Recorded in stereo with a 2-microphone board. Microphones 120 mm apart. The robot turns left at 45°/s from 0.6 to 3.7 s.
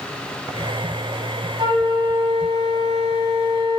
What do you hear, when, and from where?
1.6 s a flute: 35° right, 2 m; by 3.8 s 135° right, 2 m